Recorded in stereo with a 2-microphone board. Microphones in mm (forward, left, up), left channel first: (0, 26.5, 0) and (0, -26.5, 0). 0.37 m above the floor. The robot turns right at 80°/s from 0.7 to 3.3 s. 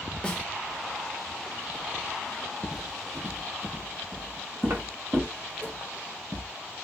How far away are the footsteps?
About 0.7 m.